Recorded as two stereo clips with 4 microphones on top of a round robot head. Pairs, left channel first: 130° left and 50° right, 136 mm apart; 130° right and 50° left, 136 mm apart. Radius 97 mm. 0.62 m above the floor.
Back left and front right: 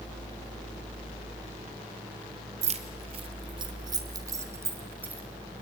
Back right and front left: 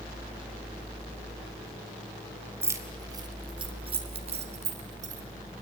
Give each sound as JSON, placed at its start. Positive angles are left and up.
{"t": 2.6, "sound": "keys jangling", "azimuth_deg": -20, "distance_m": 1.8}